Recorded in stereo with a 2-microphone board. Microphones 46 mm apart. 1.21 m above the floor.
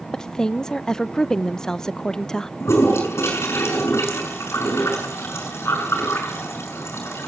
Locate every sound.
0.1 s a woman speaking: 10° left (ahead or behind), 0.7 m
2.6 s a toilet flushing: 65° left (ahead or behind), 6.5 m